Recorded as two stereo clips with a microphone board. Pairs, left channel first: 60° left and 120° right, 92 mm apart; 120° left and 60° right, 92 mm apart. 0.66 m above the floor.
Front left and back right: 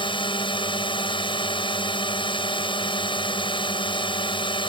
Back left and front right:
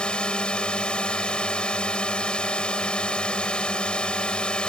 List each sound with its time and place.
0.0 s a drone: 40° left